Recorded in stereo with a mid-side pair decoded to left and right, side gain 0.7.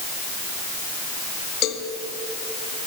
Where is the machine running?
No machine running in this recording.